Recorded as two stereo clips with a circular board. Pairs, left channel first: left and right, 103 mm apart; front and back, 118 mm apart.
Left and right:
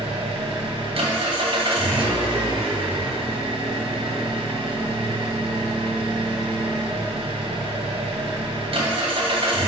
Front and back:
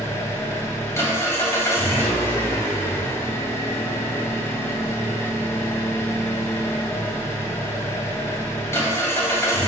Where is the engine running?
70° right, 2 m.